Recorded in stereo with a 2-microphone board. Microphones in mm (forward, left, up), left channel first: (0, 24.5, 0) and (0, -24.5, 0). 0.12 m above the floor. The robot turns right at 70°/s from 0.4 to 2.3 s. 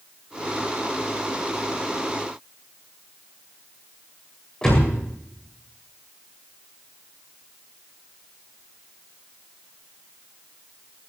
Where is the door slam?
10° left (ahead or behind), 8.5 m.